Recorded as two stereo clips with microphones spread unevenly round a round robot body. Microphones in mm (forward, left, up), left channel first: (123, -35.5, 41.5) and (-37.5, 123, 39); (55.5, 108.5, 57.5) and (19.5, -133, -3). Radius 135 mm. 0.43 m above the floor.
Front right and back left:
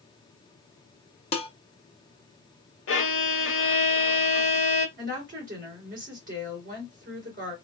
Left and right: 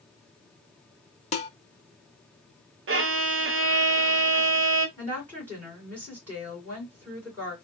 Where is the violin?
75° right, 0.9 m.